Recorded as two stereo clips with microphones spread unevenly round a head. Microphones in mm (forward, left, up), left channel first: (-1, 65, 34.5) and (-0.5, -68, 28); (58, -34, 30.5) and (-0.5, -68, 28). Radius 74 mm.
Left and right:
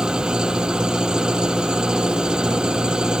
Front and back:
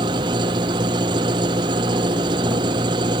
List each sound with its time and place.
0.0 s an engine running: 175° right